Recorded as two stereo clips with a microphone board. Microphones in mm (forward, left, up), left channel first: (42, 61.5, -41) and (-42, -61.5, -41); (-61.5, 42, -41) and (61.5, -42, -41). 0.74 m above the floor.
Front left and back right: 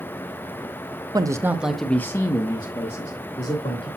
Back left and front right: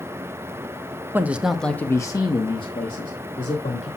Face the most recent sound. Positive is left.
turn(degrees=100)